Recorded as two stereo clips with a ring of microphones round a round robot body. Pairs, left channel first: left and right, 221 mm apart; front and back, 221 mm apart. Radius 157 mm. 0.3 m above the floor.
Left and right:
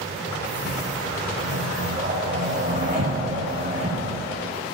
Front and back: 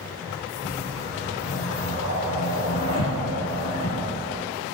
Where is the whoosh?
60° right, 3.5 m.